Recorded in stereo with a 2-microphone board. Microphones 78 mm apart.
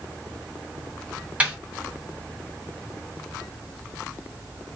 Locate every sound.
1.4 s a snare drum: 15° right (ahead or behind), 1.3 m